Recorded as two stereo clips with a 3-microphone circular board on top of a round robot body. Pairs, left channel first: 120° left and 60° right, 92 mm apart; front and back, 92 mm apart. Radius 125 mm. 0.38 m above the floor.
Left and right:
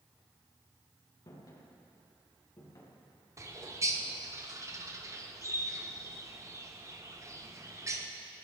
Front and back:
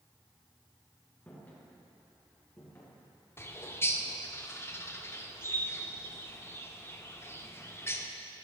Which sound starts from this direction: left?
Footsteps, at 1.3 s.